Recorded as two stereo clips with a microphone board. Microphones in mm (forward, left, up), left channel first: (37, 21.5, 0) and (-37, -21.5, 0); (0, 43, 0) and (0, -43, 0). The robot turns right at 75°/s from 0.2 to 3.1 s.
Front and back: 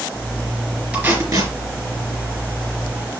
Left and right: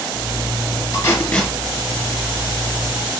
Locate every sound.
0.9 s tape being pulled: 135° left, 3 m; by 1.5 s straight behind, 3 m